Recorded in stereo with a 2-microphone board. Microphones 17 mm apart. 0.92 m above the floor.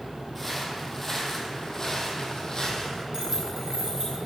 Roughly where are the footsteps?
Centre.